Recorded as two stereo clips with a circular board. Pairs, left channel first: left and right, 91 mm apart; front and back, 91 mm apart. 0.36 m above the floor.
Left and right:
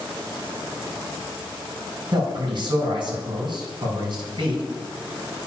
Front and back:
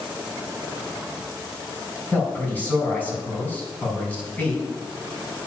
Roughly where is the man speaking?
Right.